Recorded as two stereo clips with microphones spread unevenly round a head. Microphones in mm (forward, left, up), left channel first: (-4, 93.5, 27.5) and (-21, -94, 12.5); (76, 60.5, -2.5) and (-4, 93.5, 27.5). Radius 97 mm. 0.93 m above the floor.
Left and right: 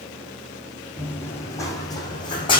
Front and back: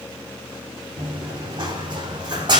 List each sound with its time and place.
1.0 s running footsteps: 165° left, 3 m; by 2.6 s 145° left, 3 m